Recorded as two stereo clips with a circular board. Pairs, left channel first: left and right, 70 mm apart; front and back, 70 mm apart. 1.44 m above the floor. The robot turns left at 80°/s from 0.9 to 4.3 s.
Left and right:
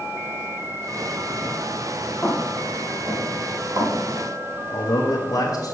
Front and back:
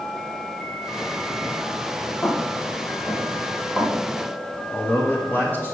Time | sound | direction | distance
2.2 | footsteps | 30° left | 1.6 m
4.7 | a man speaking | 65° left | 1.2 m